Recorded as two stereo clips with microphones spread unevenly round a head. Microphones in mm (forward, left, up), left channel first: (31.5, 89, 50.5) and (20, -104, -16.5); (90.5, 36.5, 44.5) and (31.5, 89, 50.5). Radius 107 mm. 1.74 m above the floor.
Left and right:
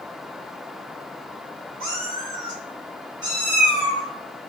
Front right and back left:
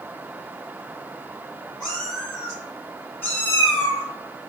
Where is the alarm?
I don't hear an alarm.